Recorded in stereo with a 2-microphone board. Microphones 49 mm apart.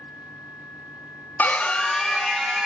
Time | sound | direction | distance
1.4 | a scream | 35° left (ahead or behind) | 0.6 m